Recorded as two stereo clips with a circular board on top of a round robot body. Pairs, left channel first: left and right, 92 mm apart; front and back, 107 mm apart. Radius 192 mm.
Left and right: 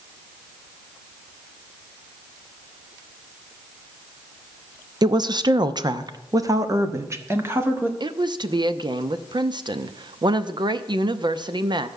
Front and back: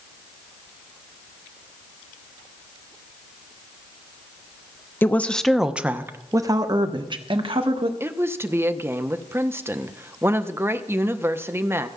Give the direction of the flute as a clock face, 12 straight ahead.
No flute in this recording.